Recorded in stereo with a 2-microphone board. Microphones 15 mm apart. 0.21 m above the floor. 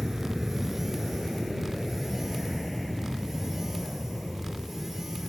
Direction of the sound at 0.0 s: 20° right (ahead or behind).